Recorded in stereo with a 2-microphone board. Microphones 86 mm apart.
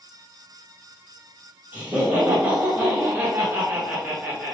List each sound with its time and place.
1.7 s laughter: 20° right (ahead or behind), 1.2 m